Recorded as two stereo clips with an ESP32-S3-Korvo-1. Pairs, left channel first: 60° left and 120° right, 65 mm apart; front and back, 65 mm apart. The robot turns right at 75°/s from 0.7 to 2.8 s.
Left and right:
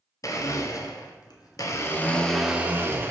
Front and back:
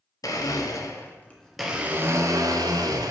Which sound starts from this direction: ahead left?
A blender, at 0.2 s.